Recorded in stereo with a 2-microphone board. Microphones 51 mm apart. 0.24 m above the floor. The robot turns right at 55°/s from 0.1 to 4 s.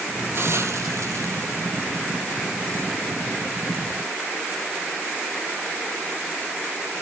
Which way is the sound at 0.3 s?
50° right (ahead or behind).